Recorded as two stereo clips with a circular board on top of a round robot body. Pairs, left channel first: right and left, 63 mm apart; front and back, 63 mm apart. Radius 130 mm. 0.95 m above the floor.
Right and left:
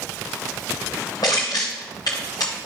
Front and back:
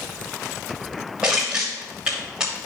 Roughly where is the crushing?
Right.